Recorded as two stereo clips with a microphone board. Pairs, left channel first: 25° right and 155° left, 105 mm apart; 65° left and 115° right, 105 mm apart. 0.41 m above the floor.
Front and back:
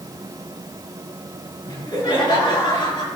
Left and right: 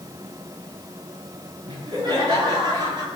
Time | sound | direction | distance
1.7 | laughter | 70° right | 5.5 m